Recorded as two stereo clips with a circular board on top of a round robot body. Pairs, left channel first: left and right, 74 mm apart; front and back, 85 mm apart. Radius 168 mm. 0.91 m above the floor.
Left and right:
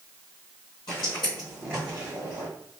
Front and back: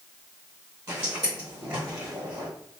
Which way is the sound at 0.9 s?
120° left.